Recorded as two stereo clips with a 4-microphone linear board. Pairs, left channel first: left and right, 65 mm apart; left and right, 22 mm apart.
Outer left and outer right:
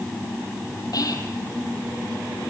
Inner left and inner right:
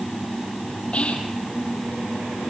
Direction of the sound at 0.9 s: 70° left (ahead or behind).